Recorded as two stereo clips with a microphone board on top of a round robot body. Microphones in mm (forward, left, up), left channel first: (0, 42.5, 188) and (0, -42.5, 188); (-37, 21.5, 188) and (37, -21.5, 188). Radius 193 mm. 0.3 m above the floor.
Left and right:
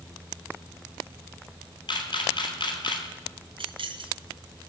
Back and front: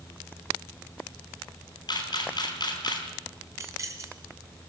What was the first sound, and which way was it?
A camera shutter, 120° left.